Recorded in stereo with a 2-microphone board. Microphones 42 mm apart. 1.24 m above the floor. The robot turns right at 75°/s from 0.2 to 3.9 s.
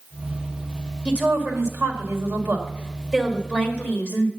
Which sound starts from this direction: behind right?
A woman speaking, at 1.1 s.